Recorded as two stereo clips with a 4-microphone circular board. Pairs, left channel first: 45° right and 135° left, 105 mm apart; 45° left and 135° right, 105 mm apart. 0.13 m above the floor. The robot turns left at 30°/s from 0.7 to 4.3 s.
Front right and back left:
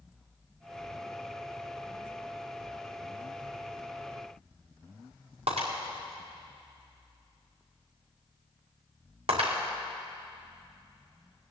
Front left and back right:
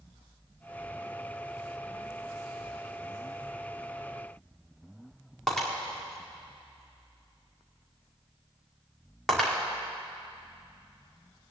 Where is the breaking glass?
130° left, 4.5 m.